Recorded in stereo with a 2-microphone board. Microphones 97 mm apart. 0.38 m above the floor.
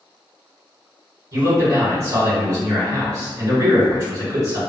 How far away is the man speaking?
About 1.8 m.